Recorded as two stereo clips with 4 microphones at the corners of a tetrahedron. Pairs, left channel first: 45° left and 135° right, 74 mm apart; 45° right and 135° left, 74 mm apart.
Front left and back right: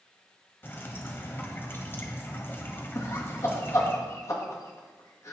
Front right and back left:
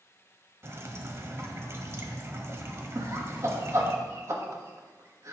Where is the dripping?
95° left, 1.4 m.